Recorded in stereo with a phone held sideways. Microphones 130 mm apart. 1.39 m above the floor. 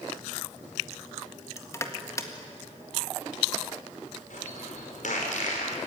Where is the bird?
80° left, 5 m.